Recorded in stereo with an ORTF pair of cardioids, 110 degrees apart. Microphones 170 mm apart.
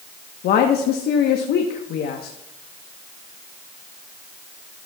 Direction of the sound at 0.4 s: 65° left.